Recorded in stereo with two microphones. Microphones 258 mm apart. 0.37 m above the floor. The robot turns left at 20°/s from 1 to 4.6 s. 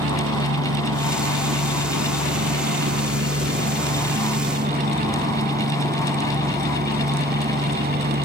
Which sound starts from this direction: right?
A helicopter, at 0.0 s.